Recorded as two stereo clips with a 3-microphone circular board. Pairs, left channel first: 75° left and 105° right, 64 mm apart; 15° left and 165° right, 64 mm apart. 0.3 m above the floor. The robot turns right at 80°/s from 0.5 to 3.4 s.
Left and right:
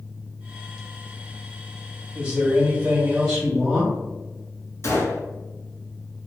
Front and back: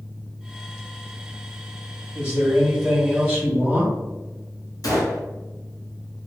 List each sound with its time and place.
2.1 s a man speaking: 120° right, 1.7 m; by 4.0 s 20° right, 1.7 m
4.8 s a gunshot: 30° left, 1.1 m